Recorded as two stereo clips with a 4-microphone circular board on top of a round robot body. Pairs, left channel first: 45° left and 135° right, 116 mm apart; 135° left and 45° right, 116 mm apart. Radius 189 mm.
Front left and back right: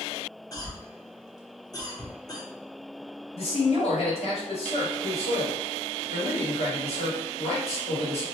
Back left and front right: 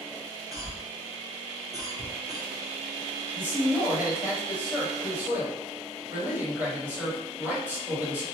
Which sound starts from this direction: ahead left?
A man speaking, at 3.3 s.